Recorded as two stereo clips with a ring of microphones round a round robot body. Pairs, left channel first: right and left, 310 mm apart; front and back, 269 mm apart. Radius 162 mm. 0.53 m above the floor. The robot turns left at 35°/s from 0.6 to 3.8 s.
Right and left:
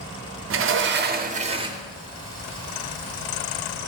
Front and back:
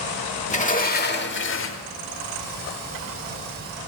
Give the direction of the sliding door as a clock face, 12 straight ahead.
10 o'clock.